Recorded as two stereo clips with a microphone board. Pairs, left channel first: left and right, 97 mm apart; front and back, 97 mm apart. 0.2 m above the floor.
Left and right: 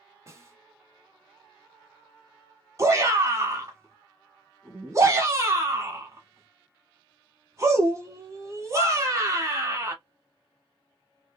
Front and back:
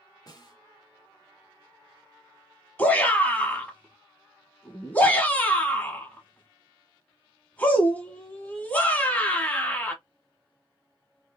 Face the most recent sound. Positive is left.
turn(degrees=-60)